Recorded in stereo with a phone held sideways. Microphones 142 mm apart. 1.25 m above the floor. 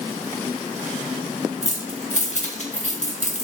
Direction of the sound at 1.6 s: 55° left (ahead or behind).